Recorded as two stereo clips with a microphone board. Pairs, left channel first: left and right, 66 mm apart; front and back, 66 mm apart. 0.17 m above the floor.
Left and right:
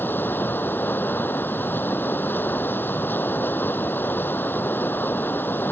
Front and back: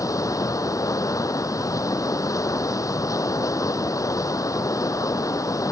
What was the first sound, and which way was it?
Running water, 30° left.